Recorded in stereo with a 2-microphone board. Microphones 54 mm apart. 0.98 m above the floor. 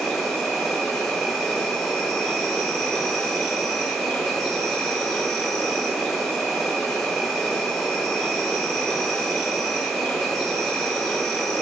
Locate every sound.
0.0 s an insect: 5° left (ahead or behind), 1.0 m